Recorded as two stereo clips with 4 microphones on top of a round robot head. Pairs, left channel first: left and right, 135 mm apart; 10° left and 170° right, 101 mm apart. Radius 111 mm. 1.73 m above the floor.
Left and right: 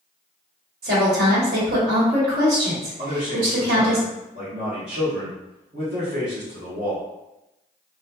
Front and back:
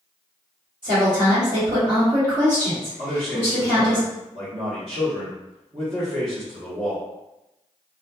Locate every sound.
0.8 s a woman speaking: 115° right, 1.4 m
3.0 s a man speaking: 135° right, 0.9 m